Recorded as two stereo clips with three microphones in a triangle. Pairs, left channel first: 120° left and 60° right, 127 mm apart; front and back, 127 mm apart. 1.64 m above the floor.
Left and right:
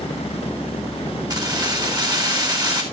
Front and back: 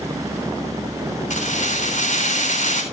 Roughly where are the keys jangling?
Ahead.